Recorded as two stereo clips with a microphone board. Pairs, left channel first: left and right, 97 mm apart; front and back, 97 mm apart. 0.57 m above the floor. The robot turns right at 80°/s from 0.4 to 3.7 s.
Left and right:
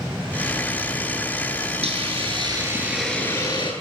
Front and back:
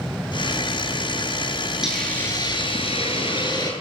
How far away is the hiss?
About 9.5 m.